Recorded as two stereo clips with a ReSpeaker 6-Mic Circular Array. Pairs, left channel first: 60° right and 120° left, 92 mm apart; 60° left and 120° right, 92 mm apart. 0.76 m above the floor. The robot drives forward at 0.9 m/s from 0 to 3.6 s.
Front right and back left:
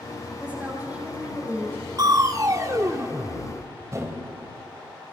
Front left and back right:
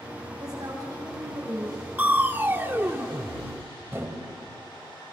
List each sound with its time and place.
0.4 s a woman speaking: 170° right, 4 m
2.0 s crushing: 165° left, 0.7 m; by 4.3 s 175° left, 2 m